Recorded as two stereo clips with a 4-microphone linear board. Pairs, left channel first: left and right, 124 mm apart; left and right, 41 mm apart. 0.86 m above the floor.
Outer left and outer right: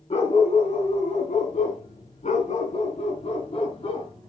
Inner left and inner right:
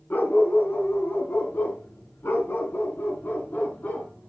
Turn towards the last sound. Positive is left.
turn(degrees=50)  # may be behind; listen again after turning